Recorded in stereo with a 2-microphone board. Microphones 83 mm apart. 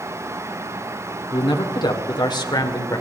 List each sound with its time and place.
1.3 s a man speaking: 70° left (ahead or behind), 1.7 m; by 3.0 s 50° left (ahead or behind), 2 m